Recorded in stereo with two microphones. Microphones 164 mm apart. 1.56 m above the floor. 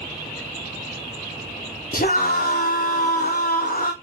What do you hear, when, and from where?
1.9 s a scream: 60° left (ahead or behind), 0.6 m